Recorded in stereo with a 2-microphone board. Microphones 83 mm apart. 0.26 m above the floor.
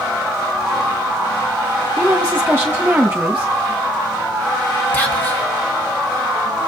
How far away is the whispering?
About 1.7 m.